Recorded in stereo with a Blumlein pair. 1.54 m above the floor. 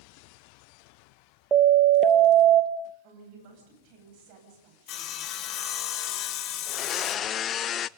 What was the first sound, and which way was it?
A siren, 20° right.